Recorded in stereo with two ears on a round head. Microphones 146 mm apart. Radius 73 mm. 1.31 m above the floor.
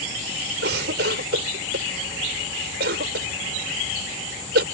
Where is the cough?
75° right (ahead or behind).